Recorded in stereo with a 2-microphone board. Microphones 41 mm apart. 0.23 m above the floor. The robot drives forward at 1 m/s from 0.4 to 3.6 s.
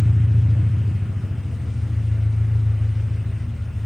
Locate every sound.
0.0 s an engine running: 20° right (ahead or behind), 1.0 m; by 3.9 s 5° right (ahead or behind), 4 m